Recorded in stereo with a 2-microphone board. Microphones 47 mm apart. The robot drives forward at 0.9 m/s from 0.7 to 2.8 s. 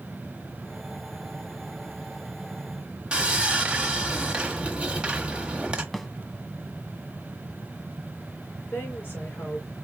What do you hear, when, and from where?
3.1 s sawing: 20° right (ahead or behind), 1.1 m
5.9 s a snare drum: 5° left (ahead or behind), 0.6 m
8.7 s a woman speaking: 45° left (ahead or behind), 3.5 m